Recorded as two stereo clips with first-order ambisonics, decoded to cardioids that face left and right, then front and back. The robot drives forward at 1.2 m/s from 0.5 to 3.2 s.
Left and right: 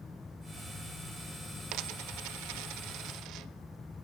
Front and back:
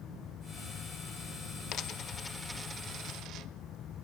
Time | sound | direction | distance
1.7 | a dropped coin | 50° right | 1.3 m